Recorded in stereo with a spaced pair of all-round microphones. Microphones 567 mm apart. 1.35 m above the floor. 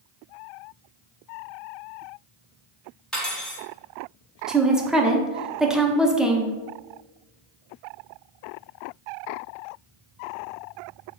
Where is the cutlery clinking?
Centre (ahead or behind), 1.2 m.